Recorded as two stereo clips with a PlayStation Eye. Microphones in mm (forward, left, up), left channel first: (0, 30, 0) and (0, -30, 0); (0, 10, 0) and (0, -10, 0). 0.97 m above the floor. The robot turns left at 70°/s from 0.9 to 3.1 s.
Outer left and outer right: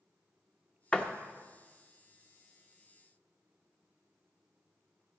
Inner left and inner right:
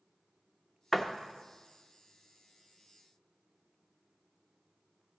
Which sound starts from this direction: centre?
A door slam, at 0.9 s.